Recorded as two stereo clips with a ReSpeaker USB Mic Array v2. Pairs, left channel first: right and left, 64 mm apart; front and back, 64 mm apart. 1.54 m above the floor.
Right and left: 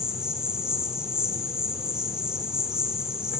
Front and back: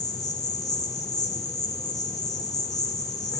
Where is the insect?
15° left, 4.5 m.